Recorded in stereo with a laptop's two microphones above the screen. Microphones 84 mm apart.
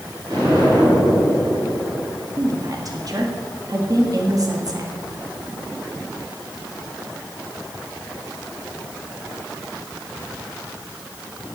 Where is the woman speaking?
45° right (ahead or behind), 1.6 m.